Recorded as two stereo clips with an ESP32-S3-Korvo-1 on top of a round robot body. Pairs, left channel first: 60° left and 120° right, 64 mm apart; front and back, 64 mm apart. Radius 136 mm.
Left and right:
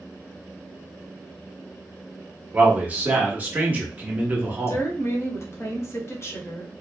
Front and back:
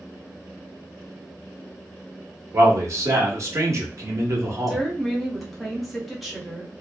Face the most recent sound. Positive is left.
turn(degrees=90)